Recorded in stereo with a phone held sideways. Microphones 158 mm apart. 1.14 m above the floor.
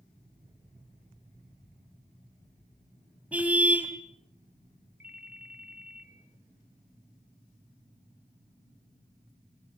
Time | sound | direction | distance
3.3 | a car horn | 10° right (ahead or behind) | 3 m
5.0 | a ringtone | 70° right (ahead or behind) | 2.5 m